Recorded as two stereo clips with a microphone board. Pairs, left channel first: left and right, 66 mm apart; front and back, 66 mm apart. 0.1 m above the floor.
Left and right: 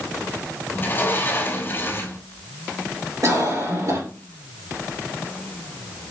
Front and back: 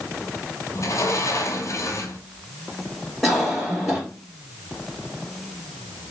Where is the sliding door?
35° left, 0.9 m.